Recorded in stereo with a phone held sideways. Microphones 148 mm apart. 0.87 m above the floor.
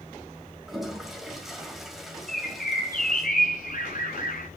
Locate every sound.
0.7 s a toilet flushing: centre (ahead or behind), 1.9 m
2.3 s a bird: 70° left (ahead or behind), 6 m